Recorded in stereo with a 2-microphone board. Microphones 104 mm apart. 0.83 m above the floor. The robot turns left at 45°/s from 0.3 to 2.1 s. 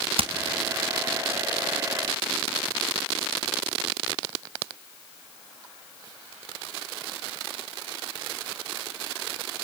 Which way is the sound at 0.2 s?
65° right (ahead or behind).